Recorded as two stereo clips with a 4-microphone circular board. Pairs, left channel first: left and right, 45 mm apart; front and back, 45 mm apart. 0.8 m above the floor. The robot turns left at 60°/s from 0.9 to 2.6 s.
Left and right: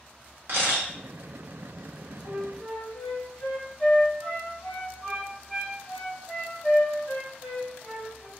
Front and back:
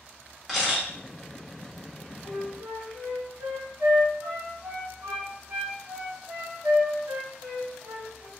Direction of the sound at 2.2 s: Straight behind.